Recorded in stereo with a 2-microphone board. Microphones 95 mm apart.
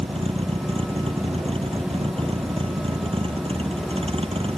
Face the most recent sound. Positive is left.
turn(degrees=-75)  # may be behind; listen again after turning